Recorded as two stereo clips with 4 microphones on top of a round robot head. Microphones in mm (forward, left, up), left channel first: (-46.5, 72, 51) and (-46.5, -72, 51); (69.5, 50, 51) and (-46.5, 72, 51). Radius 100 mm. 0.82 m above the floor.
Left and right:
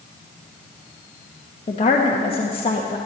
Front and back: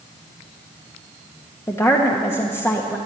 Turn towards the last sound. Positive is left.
turn(degrees=50)